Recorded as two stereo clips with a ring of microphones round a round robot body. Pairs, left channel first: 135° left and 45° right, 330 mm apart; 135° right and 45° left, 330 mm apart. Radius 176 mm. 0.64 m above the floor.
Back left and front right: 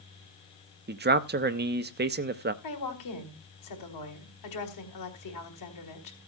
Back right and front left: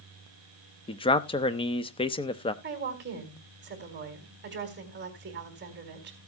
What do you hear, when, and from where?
0.9 s a man speaking: 75° right, 1.0 m
2.6 s a woman speaking: 105° left, 4 m